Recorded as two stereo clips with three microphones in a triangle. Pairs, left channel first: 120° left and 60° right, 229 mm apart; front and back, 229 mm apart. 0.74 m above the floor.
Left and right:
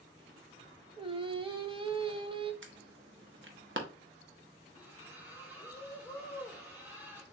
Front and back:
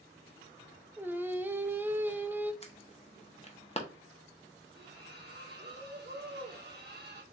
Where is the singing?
105° right, 0.5 m.